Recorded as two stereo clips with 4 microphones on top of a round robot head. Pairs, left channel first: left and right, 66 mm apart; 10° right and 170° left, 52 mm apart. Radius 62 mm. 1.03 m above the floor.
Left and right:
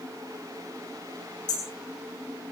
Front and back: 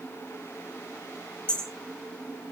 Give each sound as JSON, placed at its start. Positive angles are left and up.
{"t": 1.5, "sound": "hammering", "azimuth_deg": 60, "distance_m": 8.5}